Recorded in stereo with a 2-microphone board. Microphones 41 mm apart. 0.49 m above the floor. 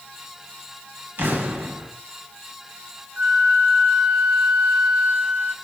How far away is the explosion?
About 1.3 m.